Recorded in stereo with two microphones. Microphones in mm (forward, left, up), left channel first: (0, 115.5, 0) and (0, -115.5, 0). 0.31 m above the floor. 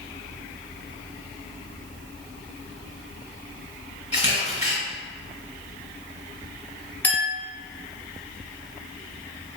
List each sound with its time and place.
4.1 s a camera shutter: 30° left (ahead or behind), 0.9 m
7.0 s a clink: 10° left (ahead or behind), 0.9 m